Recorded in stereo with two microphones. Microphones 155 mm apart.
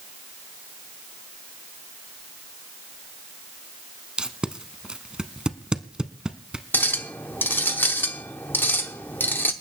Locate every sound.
4.2 s tape being pulled: 5° right (ahead or behind), 0.7 m
6.7 s a clink: 15° left (ahead or behind), 0.8 m